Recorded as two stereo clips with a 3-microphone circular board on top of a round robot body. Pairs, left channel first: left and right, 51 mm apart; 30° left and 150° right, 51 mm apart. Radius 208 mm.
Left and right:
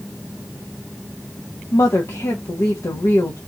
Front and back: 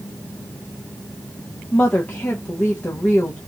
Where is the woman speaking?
95° left, 1.3 m.